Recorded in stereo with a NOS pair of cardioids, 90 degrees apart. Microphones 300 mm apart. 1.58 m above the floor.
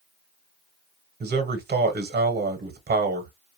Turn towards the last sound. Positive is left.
turn(degrees=-35)